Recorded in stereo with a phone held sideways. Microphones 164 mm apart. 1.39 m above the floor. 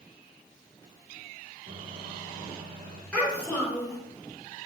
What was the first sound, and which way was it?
A microwave, 75° right (ahead or behind).